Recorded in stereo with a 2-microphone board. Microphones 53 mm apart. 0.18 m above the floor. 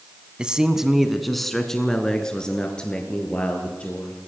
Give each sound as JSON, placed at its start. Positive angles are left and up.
{"t": 0.4, "sound": "a man speaking", "side_deg": -15, "distance_m": 1.2}